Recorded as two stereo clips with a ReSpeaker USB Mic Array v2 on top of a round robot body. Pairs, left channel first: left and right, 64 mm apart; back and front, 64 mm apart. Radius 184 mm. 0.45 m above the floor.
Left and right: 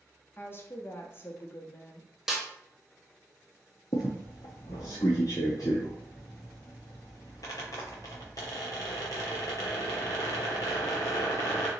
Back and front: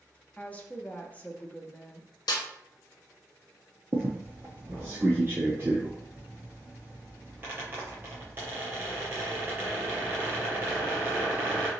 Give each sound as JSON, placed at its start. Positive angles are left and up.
{"t": 0.4, "sound": "a woman speaking", "azimuth_deg": 125, "distance_m": 1.2}
{"t": 2.3, "sound": "a snare drum", "azimuth_deg": -175, "distance_m": 0.6}
{"t": 3.9, "sound": "a squeak", "azimuth_deg": 60, "distance_m": 0.5}